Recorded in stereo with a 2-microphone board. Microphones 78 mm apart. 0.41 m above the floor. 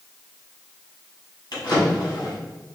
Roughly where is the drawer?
Left.